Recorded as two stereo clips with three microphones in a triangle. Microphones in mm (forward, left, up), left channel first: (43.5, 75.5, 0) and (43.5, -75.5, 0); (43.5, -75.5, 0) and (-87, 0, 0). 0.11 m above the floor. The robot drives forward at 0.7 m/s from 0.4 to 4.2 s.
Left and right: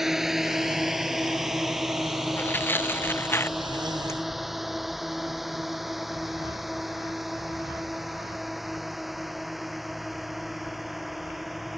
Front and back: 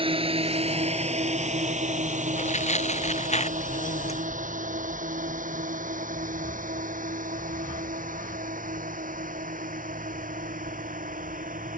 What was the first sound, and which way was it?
A drone, 175° right.